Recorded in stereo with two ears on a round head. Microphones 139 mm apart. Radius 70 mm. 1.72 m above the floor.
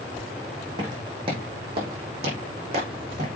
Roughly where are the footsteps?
Right.